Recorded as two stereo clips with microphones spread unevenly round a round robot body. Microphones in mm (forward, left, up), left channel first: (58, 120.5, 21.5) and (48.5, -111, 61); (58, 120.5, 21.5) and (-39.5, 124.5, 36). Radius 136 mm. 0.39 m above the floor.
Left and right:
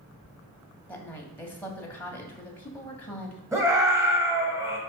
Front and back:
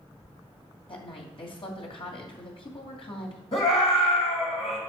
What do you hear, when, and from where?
0.9 s a woman speaking: 10° left, 2.5 m
3.5 s a scream: 10° right, 2.5 m